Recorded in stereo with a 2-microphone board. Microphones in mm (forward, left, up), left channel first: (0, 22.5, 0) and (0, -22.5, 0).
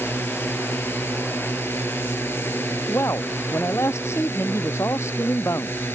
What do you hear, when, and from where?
0.0 s a drone: 55° left (ahead or behind)
2.9 s a man speaking: 85° left